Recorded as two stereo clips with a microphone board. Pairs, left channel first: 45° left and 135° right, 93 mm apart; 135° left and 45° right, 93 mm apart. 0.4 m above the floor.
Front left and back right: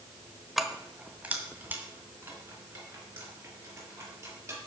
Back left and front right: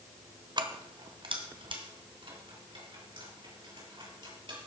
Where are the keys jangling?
45° right, 1.0 m; by 4.6 s 70° right, 6 m.